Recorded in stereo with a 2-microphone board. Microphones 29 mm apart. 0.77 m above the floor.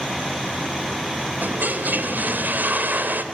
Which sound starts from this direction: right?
A toilet flushing, at 1.4 s.